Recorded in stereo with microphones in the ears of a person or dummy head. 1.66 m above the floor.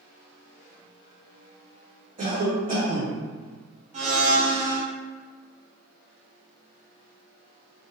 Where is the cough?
35° right (ahead or behind), 1.0 m.